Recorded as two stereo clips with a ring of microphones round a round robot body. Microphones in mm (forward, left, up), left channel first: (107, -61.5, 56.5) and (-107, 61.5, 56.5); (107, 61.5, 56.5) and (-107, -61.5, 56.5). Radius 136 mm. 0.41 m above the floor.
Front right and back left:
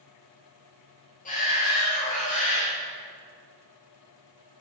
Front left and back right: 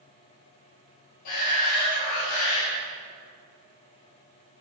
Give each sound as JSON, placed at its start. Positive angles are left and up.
{"t": 1.2, "sound": "a shout", "azimuth_deg": 30, "distance_m": 7.0}